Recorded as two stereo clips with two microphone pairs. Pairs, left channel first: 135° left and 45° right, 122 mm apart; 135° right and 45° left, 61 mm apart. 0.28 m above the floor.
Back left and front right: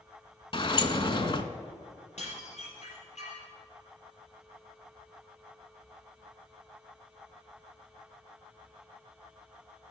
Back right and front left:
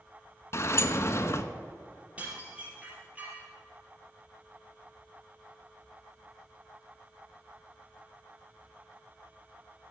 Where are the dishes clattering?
110° left, 4.5 m.